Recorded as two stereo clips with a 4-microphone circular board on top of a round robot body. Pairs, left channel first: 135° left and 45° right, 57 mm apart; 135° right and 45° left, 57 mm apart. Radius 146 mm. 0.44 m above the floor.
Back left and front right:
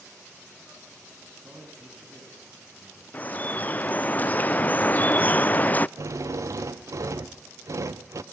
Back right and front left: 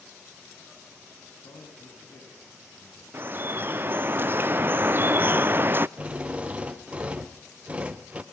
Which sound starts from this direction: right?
A man speaking, at 1.3 s.